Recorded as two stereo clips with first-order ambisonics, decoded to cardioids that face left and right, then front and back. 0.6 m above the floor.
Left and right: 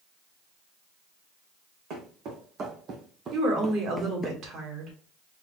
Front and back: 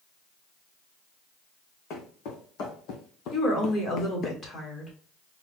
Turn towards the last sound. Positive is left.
turn(degrees=-55)